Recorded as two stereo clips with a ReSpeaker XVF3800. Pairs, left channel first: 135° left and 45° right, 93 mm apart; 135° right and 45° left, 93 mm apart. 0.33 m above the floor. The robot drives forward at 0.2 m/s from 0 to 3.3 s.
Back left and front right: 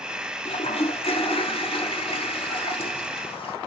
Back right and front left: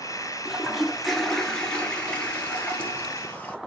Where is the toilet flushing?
130° left, 0.7 m; by 3.6 s 155° left, 1.1 m.